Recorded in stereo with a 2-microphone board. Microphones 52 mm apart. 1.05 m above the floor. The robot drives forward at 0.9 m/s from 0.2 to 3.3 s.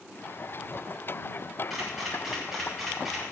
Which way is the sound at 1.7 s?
5° right (ahead or behind).